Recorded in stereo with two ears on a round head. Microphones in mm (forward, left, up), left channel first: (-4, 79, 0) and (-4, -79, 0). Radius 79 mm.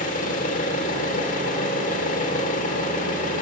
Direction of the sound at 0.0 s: 45° left (ahead or behind).